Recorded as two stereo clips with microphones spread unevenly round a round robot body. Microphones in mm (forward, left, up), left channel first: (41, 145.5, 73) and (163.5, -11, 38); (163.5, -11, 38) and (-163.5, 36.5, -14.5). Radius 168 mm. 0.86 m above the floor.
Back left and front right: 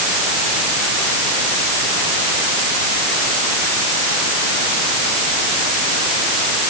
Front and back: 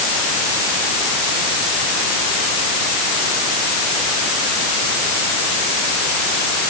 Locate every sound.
Only background noise.